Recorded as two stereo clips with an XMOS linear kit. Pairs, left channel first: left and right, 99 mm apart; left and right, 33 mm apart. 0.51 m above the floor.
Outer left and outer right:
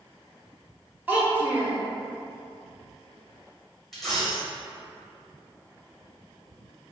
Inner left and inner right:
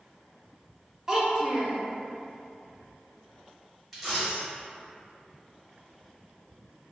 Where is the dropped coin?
5° left (ahead or behind), 1.2 m.